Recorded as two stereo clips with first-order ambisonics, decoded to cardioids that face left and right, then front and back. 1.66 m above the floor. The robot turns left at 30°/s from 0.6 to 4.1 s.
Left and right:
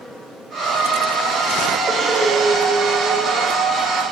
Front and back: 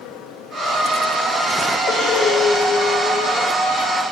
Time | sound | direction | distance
1.9 | breathing | 25° right | 1.1 m